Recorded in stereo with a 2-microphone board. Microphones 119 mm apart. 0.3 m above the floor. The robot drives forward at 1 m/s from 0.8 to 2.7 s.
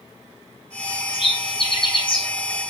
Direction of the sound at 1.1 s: 50° left (ahead or behind).